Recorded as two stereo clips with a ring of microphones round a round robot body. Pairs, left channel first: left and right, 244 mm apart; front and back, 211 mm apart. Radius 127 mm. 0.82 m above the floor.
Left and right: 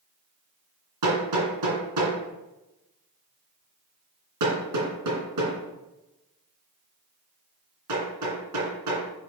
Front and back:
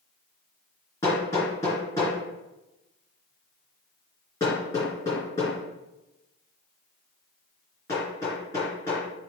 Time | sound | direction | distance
1.0 | hammering | 80° right | 3 m